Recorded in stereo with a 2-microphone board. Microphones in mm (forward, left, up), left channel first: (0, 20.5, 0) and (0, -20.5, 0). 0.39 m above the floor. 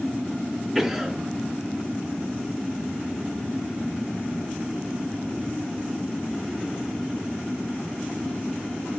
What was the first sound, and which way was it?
A cough, 5° right (ahead or behind).